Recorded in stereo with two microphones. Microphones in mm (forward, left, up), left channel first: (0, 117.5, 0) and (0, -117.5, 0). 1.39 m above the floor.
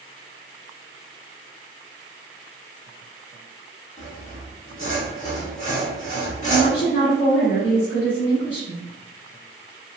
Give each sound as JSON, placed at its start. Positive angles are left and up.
{"t": 4.0, "sound": "sawing", "side_deg": 30, "distance_m": 1.5}
{"t": 6.5, "sound": "a woman speaking", "side_deg": 55, "distance_m": 1.3}